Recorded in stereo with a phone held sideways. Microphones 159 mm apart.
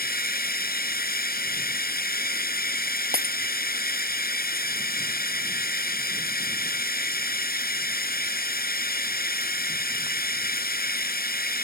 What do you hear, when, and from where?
0.0 s running water: 75° left (ahead or behind)
3.1 s breaking glass: 80° right